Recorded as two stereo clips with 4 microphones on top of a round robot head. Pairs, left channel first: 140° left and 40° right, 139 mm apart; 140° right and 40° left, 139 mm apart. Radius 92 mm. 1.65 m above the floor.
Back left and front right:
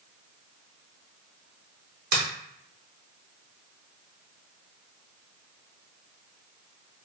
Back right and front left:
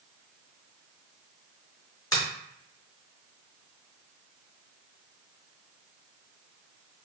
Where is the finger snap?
70° right, 1.0 m.